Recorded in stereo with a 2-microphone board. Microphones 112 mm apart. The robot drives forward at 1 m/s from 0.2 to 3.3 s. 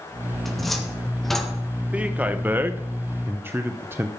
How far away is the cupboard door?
About 2.5 m.